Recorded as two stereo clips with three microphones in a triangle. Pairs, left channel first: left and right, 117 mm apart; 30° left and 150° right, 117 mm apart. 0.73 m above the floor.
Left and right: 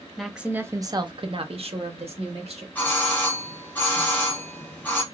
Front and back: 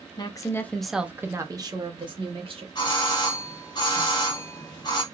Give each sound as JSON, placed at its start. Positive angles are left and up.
{"t": 0.2, "sound": "a woman speaking", "azimuth_deg": 5, "distance_m": 0.6}
{"t": 2.8, "sound": "a doorbell", "azimuth_deg": 25, "distance_m": 1.1}